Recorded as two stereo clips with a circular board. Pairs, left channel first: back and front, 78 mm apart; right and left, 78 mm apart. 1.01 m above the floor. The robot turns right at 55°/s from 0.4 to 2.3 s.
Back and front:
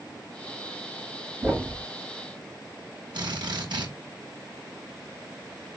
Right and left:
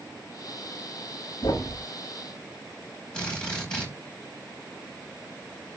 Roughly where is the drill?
Ahead.